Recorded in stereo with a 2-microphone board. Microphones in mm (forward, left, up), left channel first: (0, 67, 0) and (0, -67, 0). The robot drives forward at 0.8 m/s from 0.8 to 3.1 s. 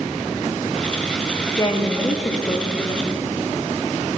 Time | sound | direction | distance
1.6 | a woman speaking | 25° left (ahead or behind) | 0.8 m